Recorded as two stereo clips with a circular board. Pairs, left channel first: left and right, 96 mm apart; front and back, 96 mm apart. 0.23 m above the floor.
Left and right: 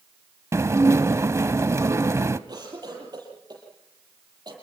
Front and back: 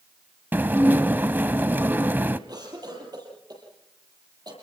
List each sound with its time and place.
0.5 s dishes clattering: 125° right, 0.8 m
2.5 s a cough: 135° right, 8 m